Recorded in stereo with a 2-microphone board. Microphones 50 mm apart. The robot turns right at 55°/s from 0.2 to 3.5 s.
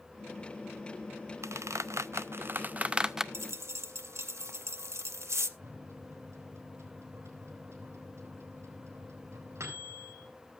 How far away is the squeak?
About 0.5 m.